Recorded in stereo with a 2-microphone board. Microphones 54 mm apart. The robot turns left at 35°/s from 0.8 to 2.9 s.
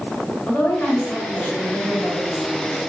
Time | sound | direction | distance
0.5 | a woman speaking | 45° left | 1.6 m